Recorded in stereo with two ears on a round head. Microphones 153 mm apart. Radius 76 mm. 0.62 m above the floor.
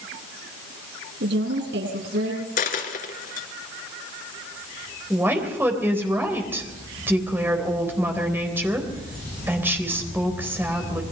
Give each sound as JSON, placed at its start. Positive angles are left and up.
{"t": 1.2, "sound": "a woman speaking", "side_deg": -70, "distance_m": 8.0}
{"t": 2.6, "sound": "a dropped coin", "side_deg": 50, "distance_m": 2.5}
{"t": 5.1, "sound": "a woman speaking", "side_deg": -15, "distance_m": 3.5}